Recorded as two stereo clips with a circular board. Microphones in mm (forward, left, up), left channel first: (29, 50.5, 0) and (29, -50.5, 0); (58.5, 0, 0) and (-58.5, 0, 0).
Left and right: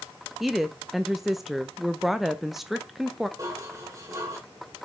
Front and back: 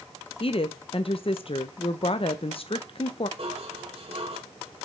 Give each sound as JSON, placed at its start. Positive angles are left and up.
{"t": 0.4, "sound": "a woman speaking", "azimuth_deg": -5, "distance_m": 0.5}
{"t": 3.4, "sound": "dishes clattering", "azimuth_deg": -145, "distance_m": 2.0}